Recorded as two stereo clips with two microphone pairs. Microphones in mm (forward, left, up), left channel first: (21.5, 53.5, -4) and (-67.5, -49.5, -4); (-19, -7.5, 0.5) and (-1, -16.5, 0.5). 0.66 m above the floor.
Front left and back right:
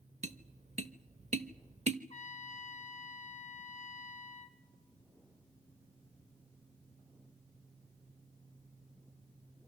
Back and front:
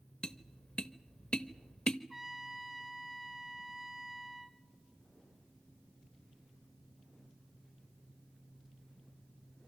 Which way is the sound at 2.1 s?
50° left.